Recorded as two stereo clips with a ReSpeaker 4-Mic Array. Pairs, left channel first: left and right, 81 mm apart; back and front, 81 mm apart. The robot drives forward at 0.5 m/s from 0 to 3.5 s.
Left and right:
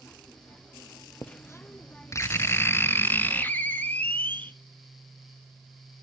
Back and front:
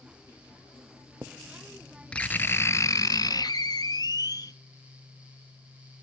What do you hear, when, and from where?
1.2 s writing: 50° left, 0.7 m; by 4.5 s 155° left, 1.0 m